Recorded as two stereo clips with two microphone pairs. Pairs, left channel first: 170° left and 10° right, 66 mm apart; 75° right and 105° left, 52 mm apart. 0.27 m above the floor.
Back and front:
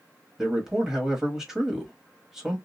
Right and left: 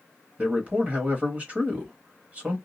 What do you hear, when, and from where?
0.4 s a man speaking: 75° left, 1.1 m